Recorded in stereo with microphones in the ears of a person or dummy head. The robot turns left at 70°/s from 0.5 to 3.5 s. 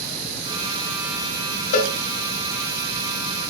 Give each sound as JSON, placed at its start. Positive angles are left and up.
{"t": 1.7, "sound": "a cowbell", "side_deg": 45, "distance_m": 1.3}